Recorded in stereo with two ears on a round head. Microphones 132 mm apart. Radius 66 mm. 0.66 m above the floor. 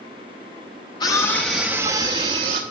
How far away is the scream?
About 0.9 m.